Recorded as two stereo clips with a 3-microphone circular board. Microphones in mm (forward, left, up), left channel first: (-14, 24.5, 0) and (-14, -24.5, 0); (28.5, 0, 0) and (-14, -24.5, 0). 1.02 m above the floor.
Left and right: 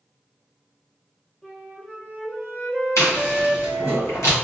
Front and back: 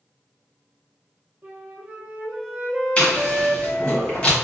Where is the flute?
165° left, 0.8 m.